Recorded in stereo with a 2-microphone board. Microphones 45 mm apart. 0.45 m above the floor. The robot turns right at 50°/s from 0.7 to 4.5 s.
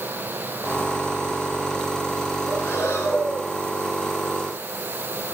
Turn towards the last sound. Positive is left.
turn(degrees=160)